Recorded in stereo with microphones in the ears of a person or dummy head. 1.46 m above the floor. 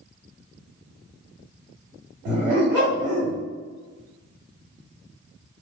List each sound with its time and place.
2.2 s a dog barking: 20° right (ahead or behind), 1.5 m